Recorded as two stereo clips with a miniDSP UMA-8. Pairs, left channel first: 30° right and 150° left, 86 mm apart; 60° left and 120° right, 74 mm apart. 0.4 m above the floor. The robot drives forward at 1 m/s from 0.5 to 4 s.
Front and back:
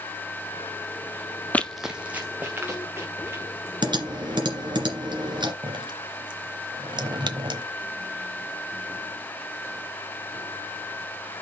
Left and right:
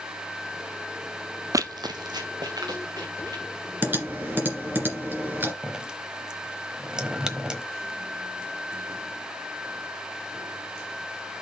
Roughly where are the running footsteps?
Right.